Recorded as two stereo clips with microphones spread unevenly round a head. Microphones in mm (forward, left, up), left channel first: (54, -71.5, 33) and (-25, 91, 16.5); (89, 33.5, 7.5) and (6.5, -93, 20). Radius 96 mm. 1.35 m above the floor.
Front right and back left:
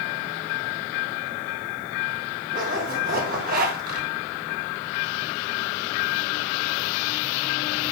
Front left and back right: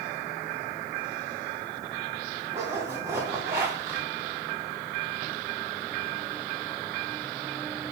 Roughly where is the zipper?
Behind.